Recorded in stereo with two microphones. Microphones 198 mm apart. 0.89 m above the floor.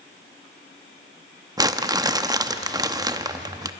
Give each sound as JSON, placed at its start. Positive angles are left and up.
{"t": 1.6, "sound": "crumpling", "side_deg": -20, "distance_m": 0.8}